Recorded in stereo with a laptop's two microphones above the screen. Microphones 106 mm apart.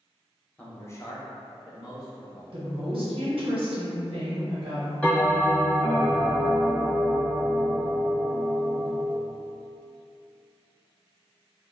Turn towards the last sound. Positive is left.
turn(degrees=15)  # may be behind; listen again after turning